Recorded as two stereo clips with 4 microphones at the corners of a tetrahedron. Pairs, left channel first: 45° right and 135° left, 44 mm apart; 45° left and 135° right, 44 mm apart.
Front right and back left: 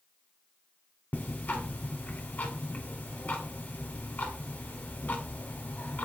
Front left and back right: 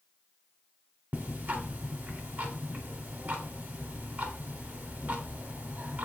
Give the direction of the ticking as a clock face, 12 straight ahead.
3 o'clock.